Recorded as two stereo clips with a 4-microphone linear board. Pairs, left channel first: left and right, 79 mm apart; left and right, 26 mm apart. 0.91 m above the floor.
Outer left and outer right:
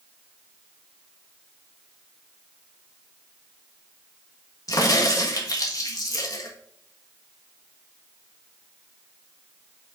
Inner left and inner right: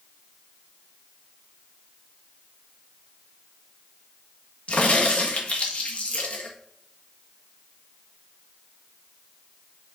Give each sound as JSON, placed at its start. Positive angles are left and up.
{"t": 4.7, "sound": "a crack", "side_deg": 50, "distance_m": 1.5}